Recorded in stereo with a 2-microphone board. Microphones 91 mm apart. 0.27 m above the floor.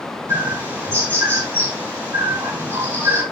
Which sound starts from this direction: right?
A bird, at 0.3 s.